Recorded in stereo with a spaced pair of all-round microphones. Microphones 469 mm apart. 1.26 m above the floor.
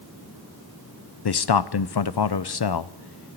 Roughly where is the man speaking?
Left.